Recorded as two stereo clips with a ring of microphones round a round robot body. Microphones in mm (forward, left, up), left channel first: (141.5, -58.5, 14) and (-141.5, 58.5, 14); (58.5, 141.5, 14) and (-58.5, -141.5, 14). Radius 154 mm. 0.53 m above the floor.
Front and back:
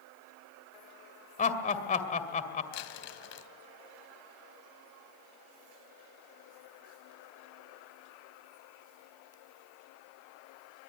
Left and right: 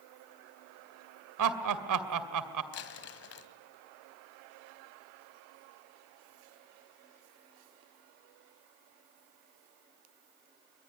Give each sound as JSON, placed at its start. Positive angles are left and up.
{"t": 1.4, "sound": "laughter", "azimuth_deg": -90, "distance_m": 2.0}
{"t": 2.7, "sound": "crumpling", "azimuth_deg": 20, "distance_m": 1.9}